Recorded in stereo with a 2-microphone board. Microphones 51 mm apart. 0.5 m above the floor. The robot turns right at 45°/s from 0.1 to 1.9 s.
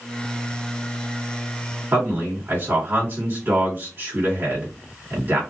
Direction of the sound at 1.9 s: 45° right (ahead or behind).